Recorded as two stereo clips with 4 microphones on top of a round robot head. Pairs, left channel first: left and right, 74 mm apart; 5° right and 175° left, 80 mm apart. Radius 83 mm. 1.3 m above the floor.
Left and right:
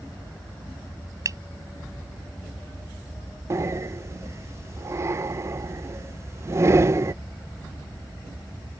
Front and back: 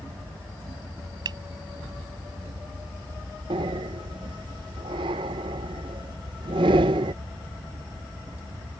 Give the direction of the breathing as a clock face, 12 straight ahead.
5 o'clock.